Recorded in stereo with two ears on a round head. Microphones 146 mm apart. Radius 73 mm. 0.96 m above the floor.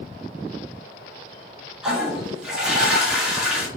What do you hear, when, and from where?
1.8 s a toilet flushing: 5° right (ahead or behind), 1.0 m